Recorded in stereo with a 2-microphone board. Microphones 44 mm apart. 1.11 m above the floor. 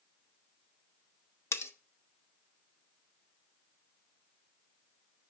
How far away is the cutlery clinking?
About 0.7 m.